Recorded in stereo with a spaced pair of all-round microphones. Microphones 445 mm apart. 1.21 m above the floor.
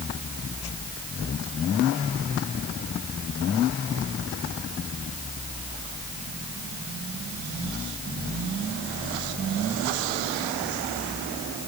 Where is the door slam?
I don't hear a door slam.